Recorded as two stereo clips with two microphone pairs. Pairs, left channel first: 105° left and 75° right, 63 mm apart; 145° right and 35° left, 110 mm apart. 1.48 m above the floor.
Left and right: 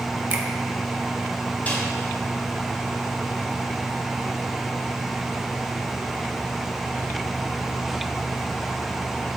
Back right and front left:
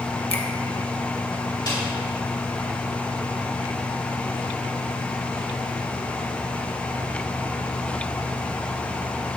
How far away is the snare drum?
About 4 m.